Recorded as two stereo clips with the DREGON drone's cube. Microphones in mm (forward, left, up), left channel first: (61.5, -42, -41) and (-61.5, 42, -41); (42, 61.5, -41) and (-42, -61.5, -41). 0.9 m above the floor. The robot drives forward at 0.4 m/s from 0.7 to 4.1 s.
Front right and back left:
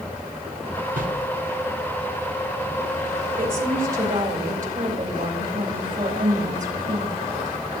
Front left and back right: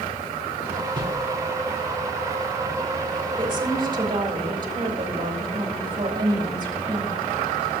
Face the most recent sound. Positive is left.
turn(degrees=175)